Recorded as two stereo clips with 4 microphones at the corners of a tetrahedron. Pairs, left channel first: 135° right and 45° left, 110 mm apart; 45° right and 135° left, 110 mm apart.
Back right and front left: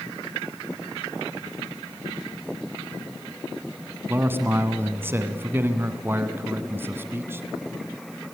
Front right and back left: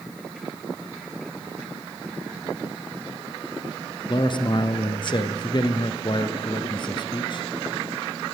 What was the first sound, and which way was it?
A man speaking, 20° right.